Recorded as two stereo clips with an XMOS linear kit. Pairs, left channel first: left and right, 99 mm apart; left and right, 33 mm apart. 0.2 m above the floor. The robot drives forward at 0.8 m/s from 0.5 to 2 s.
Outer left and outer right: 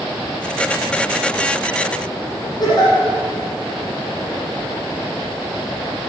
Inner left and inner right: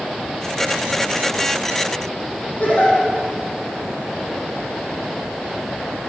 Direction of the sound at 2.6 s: 45° left (ahead or behind).